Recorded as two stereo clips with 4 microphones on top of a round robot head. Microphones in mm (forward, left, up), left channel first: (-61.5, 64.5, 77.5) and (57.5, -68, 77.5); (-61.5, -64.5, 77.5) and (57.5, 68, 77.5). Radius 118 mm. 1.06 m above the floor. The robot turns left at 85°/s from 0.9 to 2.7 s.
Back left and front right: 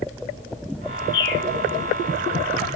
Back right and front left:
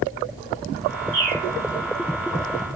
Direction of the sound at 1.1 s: 115° left.